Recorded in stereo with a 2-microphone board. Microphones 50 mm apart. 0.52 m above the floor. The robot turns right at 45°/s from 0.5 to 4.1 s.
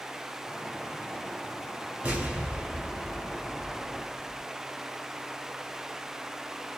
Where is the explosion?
45° right, 1.3 m; by 4.4 s 45° left, 1.3 m.